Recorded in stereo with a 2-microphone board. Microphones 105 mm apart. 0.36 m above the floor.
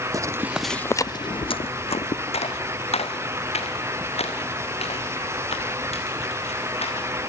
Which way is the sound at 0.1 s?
35° right (ahead or behind).